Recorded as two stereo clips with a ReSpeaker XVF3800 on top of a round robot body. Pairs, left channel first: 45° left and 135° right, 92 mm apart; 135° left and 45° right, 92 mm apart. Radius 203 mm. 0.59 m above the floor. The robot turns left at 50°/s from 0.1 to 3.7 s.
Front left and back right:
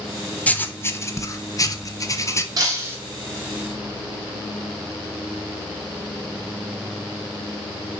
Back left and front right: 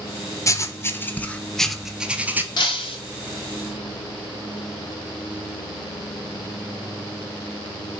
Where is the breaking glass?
175° left, 2 m; by 3.0 s 155° left, 2 m.